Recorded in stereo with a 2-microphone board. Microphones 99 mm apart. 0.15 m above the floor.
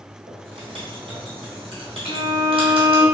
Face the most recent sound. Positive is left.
turn(degrees=55)  # may be behind; listen again after turning